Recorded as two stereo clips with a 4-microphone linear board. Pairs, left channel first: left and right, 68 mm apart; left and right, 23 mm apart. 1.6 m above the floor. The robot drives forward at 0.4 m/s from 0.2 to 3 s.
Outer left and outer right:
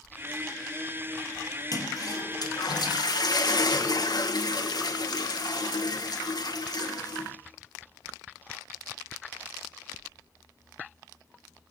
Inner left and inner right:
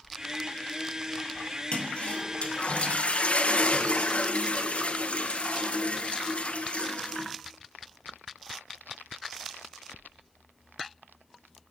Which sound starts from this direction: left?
A toilet flushing, at 1.7 s.